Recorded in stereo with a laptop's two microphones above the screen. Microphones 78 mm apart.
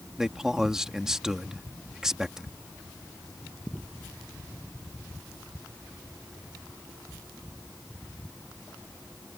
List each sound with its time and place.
0.2 s a man speaking: 5° right (ahead or behind)